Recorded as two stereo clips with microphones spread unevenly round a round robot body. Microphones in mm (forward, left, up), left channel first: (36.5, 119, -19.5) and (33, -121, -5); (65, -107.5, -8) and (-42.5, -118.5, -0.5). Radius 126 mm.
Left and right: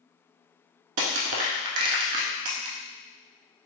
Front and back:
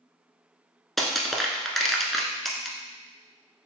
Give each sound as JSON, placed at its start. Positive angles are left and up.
{"t": 1.0, "sound": "crushing", "azimuth_deg": -85, "distance_m": 0.7}